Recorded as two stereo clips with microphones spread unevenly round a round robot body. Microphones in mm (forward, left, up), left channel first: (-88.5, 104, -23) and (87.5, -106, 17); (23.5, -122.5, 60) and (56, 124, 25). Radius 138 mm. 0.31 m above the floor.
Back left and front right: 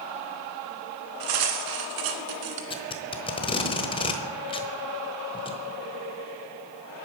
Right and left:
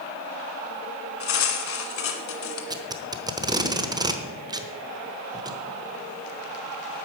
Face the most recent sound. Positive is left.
turn(degrees=115)